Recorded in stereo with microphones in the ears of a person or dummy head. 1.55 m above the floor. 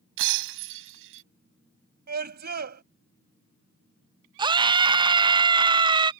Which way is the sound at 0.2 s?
70° right (ahead or behind).